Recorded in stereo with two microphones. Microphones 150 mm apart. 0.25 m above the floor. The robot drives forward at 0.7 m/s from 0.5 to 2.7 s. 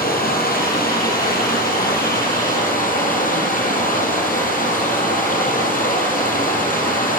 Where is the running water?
80° left, 4 m; by 7.2 s 65° left (ahead or behind), 4 m.